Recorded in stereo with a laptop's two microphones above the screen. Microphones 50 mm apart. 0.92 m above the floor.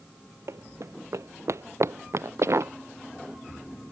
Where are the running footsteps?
70° right (ahead or behind); by 2.7 s 65° right (ahead or behind).